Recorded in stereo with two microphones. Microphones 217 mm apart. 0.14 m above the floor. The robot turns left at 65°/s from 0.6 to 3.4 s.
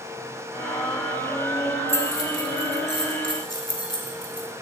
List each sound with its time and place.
1.9 s keys jangling: 10° left (ahead or behind), 0.7 m; by 4.5 s 20° left (ahead or behind), 0.7 m